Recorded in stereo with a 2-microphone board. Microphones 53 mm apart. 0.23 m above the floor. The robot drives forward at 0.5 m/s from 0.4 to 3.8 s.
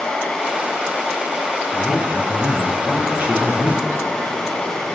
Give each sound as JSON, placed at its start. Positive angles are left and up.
{"t": 1.7, "sound": "a man speaking", "side_deg": -25, "distance_m": 2.5}